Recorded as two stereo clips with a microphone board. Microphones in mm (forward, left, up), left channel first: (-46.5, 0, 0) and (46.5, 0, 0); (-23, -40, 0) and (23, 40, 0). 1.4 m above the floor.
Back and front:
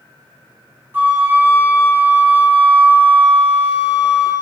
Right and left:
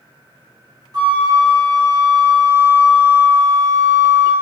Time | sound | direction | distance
0.9 | a flute | 55° left | 1.3 m